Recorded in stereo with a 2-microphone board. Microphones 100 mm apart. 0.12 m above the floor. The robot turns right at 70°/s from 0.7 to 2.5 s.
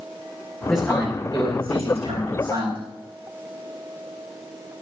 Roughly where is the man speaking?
Behind.